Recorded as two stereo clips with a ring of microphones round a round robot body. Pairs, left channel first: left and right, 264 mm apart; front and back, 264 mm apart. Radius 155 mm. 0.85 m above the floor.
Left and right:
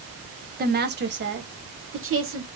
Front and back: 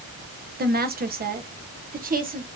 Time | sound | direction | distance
0.6 | a woman speaking | 135° right | 1.1 m